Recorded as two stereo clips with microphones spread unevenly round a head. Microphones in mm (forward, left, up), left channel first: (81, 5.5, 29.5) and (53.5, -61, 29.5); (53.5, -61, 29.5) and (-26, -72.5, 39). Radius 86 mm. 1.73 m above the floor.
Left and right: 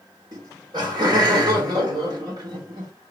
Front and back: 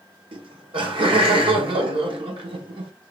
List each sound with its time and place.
0.3 s laughter: 165° right, 1.1 m